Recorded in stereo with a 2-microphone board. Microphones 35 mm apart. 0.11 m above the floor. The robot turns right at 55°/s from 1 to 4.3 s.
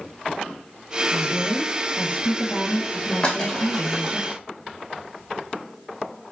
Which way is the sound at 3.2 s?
25° left (ahead or behind).